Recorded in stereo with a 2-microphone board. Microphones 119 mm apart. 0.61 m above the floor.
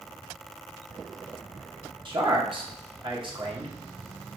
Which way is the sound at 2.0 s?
45° right (ahead or behind).